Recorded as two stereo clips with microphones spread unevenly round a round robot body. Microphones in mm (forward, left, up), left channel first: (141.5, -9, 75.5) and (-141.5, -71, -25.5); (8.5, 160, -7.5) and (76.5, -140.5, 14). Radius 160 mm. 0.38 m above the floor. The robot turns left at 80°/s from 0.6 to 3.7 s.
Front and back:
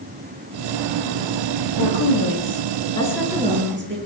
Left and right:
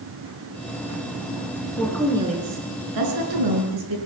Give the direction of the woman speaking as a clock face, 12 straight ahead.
11 o'clock.